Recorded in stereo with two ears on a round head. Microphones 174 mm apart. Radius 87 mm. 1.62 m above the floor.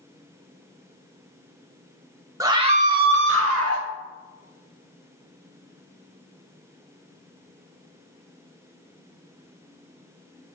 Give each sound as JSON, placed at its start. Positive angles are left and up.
{"t": 2.4, "sound": "a scream", "side_deg": -15, "distance_m": 1.0}